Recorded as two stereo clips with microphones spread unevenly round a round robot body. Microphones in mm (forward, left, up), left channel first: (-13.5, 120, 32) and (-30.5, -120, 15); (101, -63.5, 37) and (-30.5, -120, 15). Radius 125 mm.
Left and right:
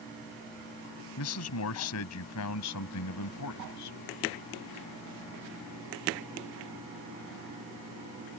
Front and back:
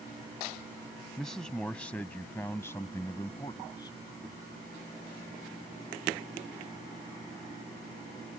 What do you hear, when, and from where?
1.2 s a man speaking: 110° left; by 4.0 s 95° left